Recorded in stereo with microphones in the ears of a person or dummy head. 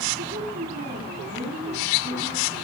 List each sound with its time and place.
0.2 s a woman speaking: 50° right (ahead or behind), 4.5 m